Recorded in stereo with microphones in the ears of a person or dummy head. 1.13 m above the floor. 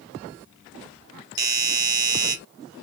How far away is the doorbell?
About 0.6 m.